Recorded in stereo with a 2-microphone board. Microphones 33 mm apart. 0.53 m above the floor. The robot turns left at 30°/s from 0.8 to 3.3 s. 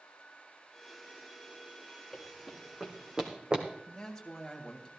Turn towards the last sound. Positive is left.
turn(degrees=15)  # may be behind; listen again after turning